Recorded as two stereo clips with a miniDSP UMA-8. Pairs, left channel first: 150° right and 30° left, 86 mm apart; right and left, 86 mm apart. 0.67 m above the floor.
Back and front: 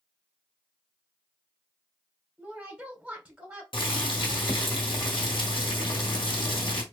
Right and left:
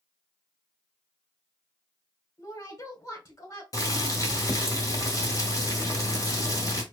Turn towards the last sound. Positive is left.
turn(degrees=-135)